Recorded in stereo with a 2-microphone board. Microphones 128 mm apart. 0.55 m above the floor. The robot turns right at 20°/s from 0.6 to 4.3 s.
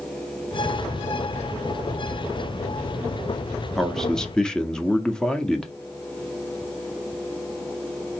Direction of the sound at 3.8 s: Centre (ahead or behind).